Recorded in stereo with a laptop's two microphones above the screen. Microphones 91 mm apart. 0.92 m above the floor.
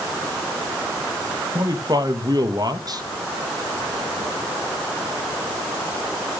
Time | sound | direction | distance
1.6 | a man speaking | 45° right (ahead or behind) | 1.4 m